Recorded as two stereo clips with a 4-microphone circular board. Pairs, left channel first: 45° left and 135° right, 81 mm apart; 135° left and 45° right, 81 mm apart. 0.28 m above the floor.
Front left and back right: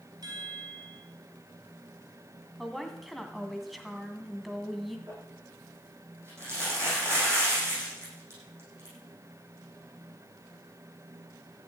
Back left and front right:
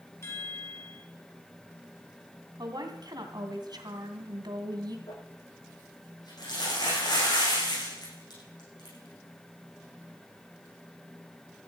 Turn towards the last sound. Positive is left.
turn(degrees=165)